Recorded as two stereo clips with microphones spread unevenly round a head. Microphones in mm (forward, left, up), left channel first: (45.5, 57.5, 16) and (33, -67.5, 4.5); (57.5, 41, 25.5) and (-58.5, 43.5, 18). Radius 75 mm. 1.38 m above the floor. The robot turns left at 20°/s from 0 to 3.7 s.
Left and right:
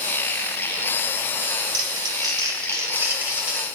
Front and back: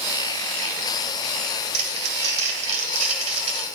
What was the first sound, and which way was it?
Crumpling, 145° right.